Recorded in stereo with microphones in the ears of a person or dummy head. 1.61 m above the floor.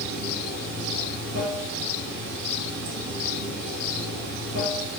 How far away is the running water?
About 1.2 m.